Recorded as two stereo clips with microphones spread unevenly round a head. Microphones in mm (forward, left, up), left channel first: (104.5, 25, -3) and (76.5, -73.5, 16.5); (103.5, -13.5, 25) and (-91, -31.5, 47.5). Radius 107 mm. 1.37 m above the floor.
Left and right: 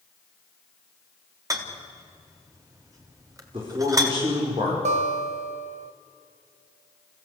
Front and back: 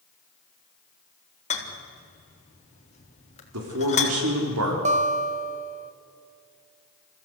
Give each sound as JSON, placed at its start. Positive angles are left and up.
{"t": 1.5, "sound": "a rattle", "azimuth_deg": -50, "distance_m": 3.5}
{"t": 3.5, "sound": "a man speaking", "azimuth_deg": -175, "distance_m": 5.0}
{"t": 4.8, "sound": "a guitar", "azimuth_deg": -120, "distance_m": 1.3}